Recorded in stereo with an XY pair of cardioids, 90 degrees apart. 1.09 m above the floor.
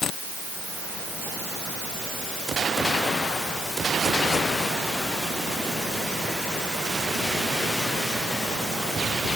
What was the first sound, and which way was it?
Only background noise.